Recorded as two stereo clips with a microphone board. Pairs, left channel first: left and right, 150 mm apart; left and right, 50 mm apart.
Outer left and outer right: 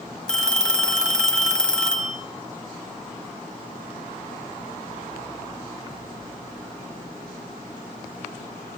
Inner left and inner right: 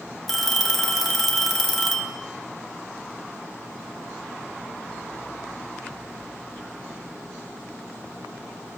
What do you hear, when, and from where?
0.3 s a phone ringing: 5° left (ahead or behind), 1.0 m